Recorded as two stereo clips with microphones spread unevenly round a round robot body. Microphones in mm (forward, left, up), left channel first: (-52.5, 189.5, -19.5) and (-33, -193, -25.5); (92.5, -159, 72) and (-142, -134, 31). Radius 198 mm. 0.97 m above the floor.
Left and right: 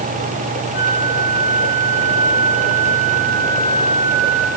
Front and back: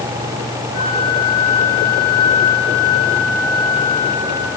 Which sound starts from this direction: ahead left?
A flute, at 0.7 s.